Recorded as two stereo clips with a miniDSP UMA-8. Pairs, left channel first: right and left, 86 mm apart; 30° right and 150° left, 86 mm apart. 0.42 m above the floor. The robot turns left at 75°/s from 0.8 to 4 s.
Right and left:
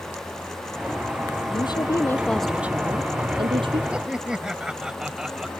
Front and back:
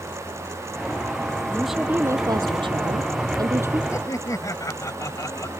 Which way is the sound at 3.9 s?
20° left.